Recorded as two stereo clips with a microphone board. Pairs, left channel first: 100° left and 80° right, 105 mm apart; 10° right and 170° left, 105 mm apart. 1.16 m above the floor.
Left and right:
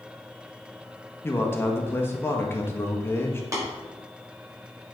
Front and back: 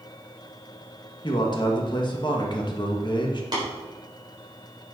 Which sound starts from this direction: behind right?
Tapping, at 3.5 s.